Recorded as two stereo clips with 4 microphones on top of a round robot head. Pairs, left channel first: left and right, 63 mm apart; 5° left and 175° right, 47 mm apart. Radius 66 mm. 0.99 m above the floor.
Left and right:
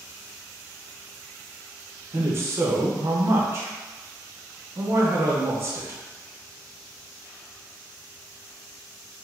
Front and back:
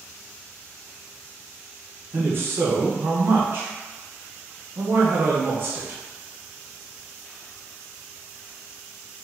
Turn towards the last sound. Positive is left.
turn(degrees=-135)